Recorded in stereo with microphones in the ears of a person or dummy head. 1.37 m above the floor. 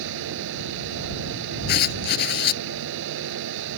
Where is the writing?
60° left (ahead or behind).